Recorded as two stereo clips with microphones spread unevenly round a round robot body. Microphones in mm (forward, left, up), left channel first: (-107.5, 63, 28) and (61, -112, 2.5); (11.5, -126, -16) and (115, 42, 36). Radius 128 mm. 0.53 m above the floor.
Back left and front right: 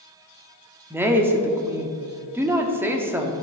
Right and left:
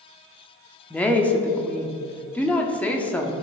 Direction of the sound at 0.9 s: 100° right.